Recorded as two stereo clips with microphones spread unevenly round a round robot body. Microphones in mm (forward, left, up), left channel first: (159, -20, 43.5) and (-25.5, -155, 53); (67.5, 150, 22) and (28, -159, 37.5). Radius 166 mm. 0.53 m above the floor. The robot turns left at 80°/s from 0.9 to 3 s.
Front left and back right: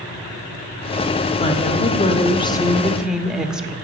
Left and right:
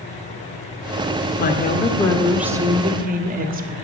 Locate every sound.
1.4 s a woman speaking: 75° left, 1.1 m; by 3.8 s 55° right, 1.1 m